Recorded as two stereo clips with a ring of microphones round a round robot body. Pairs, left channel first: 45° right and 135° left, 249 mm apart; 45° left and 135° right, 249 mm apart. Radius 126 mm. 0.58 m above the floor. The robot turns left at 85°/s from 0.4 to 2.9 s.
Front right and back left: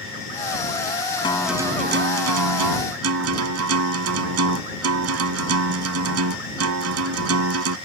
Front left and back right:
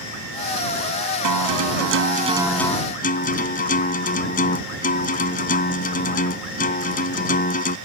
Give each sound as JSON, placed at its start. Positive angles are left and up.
{"t": 1.2, "sound": "a guitar", "azimuth_deg": -115}